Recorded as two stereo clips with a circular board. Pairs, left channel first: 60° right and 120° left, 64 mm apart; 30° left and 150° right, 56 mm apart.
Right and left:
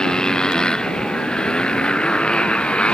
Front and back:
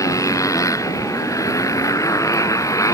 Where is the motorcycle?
15° left; by 2.9 s 10° left.